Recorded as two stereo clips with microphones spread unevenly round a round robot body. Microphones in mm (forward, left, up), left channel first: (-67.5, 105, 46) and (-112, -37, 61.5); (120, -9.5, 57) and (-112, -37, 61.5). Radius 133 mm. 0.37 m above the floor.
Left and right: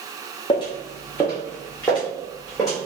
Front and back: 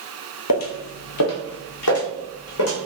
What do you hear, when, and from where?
0.5 s footsteps: 5° left, 0.5 m; by 2.8 s 20° right, 1.6 m